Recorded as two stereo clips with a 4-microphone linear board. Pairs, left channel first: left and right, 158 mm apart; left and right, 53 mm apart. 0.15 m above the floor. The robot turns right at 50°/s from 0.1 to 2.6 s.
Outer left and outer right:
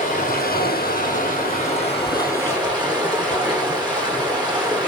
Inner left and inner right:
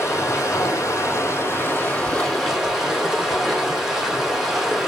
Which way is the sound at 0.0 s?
50° left.